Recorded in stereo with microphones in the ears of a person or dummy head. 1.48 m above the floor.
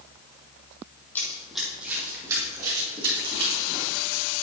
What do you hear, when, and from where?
1.1 s running footsteps: 10° left (ahead or behind), 2.5 m; by 3.9 s 40° right (ahead or behind), 5 m